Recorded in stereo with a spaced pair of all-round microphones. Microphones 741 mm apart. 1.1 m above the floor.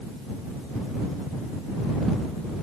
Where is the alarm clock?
I don't hear an alarm clock.